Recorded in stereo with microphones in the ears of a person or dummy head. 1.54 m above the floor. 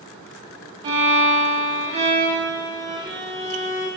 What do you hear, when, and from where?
0.8 s a violin: 25° right (ahead or behind), 0.6 m